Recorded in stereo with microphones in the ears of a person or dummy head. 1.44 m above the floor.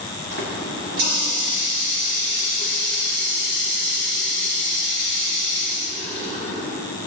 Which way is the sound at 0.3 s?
75° right (ahead or behind).